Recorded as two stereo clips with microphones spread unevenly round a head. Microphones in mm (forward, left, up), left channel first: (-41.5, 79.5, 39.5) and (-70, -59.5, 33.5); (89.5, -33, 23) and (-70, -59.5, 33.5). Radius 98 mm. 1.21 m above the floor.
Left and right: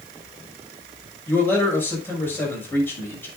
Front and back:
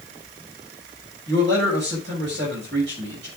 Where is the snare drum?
I don't hear a snare drum.